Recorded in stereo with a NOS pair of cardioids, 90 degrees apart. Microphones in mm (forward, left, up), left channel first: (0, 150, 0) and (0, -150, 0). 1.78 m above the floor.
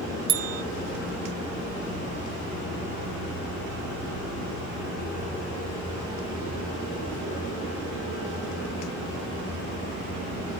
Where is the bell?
60° right, 0.7 m.